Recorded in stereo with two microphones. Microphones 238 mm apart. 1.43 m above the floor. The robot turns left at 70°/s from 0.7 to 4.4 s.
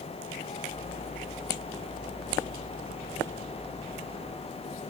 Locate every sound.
Only background noise.